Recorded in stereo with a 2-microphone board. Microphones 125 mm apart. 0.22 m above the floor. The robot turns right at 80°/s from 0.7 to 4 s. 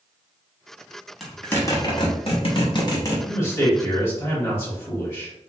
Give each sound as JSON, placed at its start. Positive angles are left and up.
{"t": 1.2, "sound": "a zipper", "side_deg": -5, "distance_m": 1.0}
{"t": 3.3, "sound": "a man speaking", "side_deg": 25, "distance_m": 1.3}